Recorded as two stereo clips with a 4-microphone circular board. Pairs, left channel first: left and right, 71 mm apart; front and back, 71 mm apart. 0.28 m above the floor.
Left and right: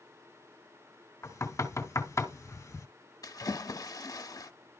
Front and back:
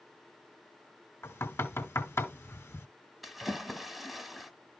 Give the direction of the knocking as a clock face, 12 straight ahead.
10 o'clock.